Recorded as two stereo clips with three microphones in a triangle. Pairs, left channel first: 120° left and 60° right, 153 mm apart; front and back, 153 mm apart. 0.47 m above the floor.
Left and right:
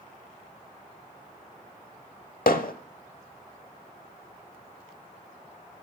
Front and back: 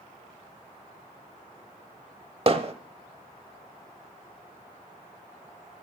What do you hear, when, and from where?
2.5 s hammering: 130° left, 0.9 m